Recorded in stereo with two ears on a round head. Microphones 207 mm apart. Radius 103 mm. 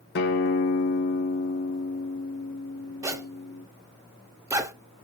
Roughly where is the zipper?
Centre.